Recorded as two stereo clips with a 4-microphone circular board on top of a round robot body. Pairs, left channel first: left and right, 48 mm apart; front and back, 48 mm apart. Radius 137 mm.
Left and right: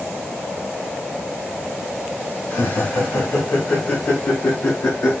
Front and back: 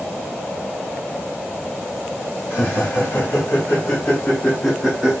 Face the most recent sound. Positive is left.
turn(degrees=100)